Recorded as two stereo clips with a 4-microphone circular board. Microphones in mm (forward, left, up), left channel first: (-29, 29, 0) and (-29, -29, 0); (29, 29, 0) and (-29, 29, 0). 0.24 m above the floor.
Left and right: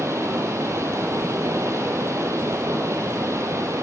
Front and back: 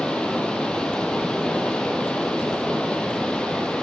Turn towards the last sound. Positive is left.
turn(degrees=-70)